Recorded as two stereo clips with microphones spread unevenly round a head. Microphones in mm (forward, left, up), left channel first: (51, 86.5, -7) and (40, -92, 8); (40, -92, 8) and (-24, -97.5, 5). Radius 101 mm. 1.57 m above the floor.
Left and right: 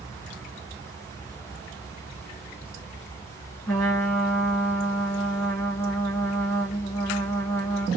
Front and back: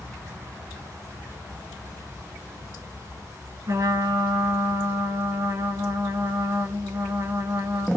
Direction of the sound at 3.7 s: 175° left.